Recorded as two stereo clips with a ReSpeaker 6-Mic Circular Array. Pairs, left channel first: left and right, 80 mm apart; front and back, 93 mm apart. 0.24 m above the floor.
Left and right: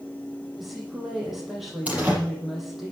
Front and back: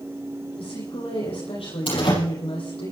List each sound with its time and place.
0.6 s a woman speaking: straight ahead, 9.5 m
1.9 s a door slam: 20° right, 7 m